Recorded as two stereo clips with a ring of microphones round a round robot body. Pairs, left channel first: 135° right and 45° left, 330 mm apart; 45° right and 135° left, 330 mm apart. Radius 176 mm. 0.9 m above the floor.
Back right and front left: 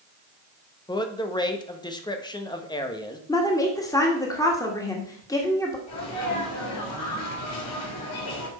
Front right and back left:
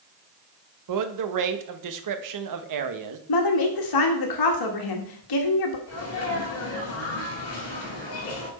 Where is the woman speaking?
55° right, 1.6 m.